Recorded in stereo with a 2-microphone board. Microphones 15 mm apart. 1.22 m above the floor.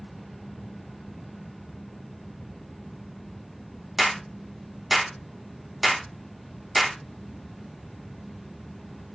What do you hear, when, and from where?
4.0 s a clap: 20° right (ahead or behind), 2.5 m